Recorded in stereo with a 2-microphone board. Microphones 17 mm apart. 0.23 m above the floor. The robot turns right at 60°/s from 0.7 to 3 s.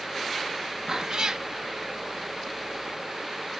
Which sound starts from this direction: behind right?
A cat meowing, at 0.9 s.